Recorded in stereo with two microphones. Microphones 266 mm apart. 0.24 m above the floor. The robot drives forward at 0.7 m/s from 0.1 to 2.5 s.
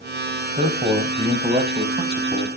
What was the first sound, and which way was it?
A man speaking, 25° right (ahead or behind).